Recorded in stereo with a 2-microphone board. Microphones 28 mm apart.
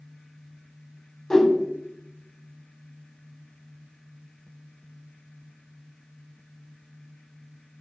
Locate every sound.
1.3 s a whoosh: 20° left (ahead or behind), 0.6 m